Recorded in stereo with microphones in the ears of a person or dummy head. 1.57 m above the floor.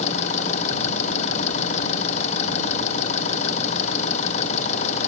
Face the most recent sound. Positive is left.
turn(degrees=40)  # may be behind; listen again after turning